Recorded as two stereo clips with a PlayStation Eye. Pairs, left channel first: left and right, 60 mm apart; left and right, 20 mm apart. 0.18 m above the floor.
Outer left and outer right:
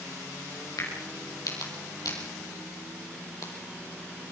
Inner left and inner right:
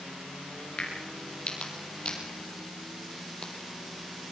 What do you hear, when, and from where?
0.8 s a crack: 70° left (ahead or behind), 6 m